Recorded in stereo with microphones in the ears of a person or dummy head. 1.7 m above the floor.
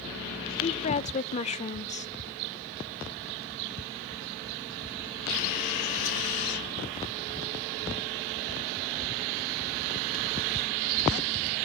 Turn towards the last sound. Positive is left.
turn(degrees=35)  # may be behind; listen again after turning